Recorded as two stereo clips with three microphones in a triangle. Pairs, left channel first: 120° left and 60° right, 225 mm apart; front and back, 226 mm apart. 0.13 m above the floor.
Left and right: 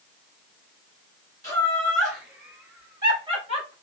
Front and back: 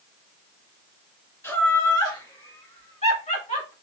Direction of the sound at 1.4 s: 65° left.